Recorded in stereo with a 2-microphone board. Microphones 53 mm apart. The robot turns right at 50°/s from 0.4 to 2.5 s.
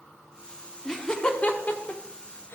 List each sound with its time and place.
0.8 s laughter: 5° left (ahead or behind), 0.9 m; by 2.5 s 45° left (ahead or behind), 0.9 m